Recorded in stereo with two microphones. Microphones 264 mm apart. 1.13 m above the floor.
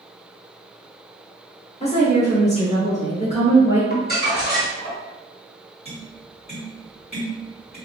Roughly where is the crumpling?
Left.